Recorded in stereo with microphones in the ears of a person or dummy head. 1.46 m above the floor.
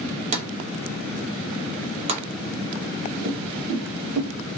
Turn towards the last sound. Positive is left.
turn(degrees=-40)  # may be behind; listen again after turning